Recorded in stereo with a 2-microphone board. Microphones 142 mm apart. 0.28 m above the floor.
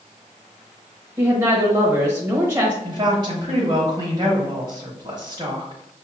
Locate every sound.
1.2 s a woman speaking: 20° right (ahead or behind), 0.9 m
2.8 s a woman speaking: 30° right (ahead or behind), 1.1 m